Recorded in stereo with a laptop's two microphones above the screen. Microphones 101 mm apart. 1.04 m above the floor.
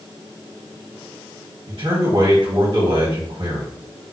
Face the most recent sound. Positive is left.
turn(degrees=-55)  # may be behind; listen again after turning